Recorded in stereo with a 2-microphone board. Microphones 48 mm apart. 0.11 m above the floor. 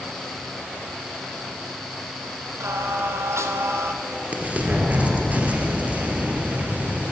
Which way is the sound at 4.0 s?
30° right (ahead or behind).